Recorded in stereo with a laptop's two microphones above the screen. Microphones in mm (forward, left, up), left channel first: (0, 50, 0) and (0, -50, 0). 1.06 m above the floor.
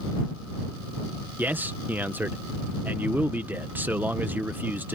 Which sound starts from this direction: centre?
A man speaking, at 1.4 s.